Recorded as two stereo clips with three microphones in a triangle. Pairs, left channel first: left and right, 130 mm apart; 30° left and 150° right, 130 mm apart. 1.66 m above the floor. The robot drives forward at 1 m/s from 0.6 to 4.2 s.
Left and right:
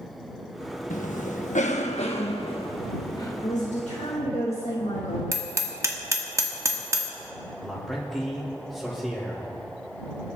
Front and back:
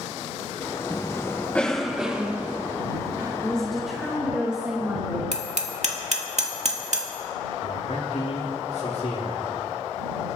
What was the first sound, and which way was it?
A cough, 85° left.